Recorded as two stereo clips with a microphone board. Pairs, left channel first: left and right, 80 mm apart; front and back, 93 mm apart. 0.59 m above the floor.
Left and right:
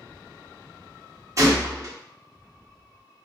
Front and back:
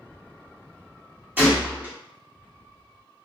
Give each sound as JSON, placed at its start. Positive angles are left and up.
{"t": 1.4, "sound": "a gunshot", "azimuth_deg": -120, "distance_m": 1.4}